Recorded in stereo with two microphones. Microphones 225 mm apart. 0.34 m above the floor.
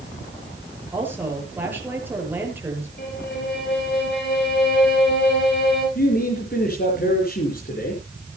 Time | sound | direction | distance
0.9 | a woman speaking | 10° right (ahead or behind) | 7 m
3.0 | a violin | 50° left (ahead or behind) | 8 m
6.0 | a man speaking | 45° left (ahead or behind) | 5 m